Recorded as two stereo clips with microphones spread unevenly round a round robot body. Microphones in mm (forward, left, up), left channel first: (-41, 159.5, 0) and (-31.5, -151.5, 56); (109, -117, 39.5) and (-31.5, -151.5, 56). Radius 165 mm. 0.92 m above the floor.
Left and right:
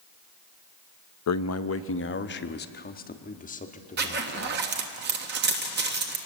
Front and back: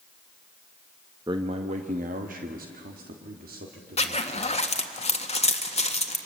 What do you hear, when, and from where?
1.3 s a man speaking: 120° left, 0.6 m; by 4.7 s 160° left, 2 m
4.0 s a zipper: 25° right, 1.5 m